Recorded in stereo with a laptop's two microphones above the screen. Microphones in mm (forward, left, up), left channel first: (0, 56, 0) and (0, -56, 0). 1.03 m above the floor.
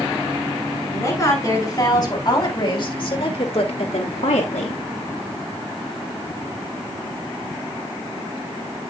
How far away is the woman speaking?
About 6 m.